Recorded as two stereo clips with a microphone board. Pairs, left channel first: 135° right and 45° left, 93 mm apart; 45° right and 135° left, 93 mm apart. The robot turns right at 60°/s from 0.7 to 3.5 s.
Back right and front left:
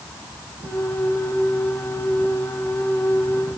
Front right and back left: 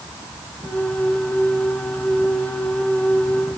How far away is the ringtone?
I don't hear a ringtone.